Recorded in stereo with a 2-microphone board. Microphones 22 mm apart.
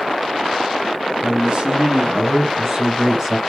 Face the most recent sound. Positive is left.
turn(degrees=-10)  # may be behind; listen again after turning